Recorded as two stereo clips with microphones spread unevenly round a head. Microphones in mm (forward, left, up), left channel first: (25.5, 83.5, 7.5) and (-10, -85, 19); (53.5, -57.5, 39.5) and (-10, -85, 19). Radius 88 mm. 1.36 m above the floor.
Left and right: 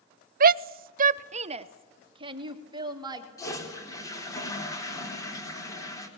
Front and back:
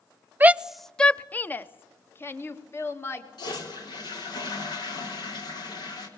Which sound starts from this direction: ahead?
A toilet flushing, at 3.4 s.